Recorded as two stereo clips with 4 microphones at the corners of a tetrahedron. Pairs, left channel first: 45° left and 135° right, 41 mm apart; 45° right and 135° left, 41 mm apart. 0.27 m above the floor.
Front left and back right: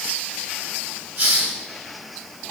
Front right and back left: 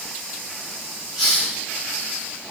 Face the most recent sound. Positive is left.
turn(degrees=-150)